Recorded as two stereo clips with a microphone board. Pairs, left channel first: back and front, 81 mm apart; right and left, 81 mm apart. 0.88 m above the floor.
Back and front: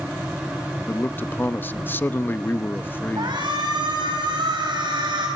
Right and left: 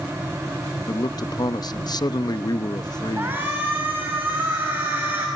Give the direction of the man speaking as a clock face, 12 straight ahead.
4 o'clock.